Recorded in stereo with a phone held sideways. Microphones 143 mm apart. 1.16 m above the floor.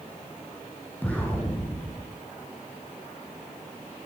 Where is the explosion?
15° left (ahead or behind), 6.5 m.